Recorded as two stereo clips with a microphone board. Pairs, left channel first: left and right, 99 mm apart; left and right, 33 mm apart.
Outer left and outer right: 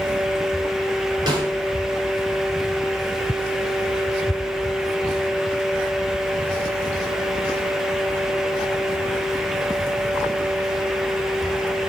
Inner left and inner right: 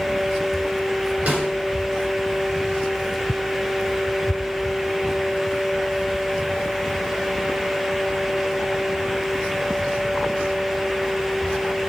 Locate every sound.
1.3 s a snare drum: 45° right (ahead or behind), 2.5 m